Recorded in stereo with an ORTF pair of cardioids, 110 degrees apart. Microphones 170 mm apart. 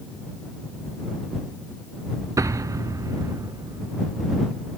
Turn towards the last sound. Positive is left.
turn(degrees=-20)